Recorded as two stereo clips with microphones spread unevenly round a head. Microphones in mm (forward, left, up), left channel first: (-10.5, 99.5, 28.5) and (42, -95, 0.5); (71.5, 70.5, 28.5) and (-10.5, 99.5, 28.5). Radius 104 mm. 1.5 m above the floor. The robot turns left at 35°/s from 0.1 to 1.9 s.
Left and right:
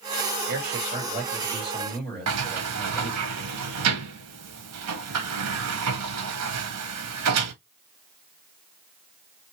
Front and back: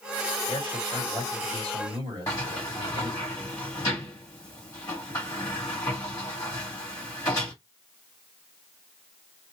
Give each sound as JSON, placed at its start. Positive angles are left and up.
{"t": 0.5, "sound": "a man speaking", "azimuth_deg": -115, "distance_m": 2.5}
{"t": 2.3, "sound": "a sliding door", "azimuth_deg": -95, "distance_m": 1.1}